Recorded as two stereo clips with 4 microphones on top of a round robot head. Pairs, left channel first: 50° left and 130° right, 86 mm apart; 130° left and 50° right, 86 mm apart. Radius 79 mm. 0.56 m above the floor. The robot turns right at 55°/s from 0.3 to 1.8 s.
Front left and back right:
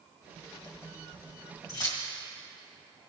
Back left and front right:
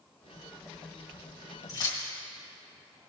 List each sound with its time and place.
1.7 s keys jangling: 80° left, 1.9 m; by 2.0 s 85° left, 1.9 m